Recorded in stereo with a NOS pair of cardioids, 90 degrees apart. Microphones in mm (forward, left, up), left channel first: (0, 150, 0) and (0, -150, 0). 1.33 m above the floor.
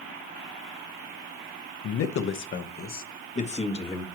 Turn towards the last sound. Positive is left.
turn(degrees=20)